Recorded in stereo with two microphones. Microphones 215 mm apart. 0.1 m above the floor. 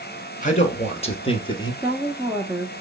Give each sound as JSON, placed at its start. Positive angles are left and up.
{"t": 0.4, "sound": "a man speaking", "side_deg": 35, "distance_m": 1.6}
{"t": 1.8, "sound": "a woman speaking", "side_deg": -10, "distance_m": 1.4}